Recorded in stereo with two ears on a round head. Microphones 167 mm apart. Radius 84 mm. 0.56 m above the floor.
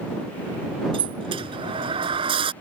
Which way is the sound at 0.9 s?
30° right (ahead or behind).